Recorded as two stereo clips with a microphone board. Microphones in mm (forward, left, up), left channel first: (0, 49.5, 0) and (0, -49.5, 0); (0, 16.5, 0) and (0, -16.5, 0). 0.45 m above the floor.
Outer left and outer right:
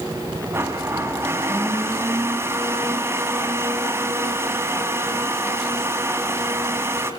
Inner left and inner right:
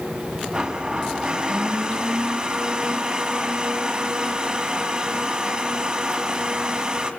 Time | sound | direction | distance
0.5 | a blender | 25° right (ahead or behind) | 3.5 m